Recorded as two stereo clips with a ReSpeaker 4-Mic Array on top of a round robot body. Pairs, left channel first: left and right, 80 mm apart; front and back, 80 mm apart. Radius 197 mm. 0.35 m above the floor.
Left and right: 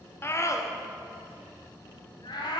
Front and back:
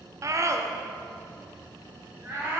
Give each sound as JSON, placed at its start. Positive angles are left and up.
{"t": 0.2, "sound": "a scream", "azimuth_deg": 145, "distance_m": 1.3}